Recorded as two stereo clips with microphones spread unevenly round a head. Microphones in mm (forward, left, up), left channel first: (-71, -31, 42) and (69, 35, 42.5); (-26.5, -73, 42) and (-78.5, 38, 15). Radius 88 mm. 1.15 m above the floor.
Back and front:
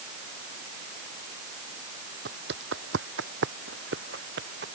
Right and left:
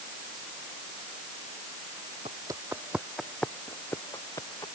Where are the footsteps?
45° left; by 4.7 s 5° left.